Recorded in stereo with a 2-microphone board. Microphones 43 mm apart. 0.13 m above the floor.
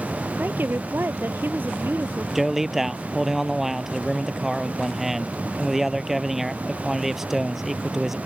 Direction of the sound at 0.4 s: 55° right (ahead or behind).